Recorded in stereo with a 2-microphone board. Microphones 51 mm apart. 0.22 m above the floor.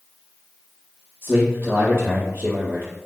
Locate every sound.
1.2 s a man speaking: 40° right (ahead or behind), 4 m